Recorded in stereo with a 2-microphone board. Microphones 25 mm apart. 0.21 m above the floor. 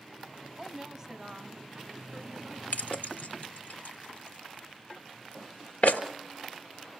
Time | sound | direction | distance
0.6 | a woman speaking | 20° right (ahead or behind) | 1.5 m
2.7 | keys jangling | 65° left (ahead or behind) | 2 m